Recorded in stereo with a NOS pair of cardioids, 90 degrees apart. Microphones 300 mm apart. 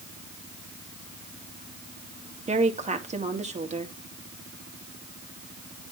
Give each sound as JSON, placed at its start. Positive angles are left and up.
{"t": 2.5, "sound": "a woman speaking", "azimuth_deg": -25, "distance_m": 2.0}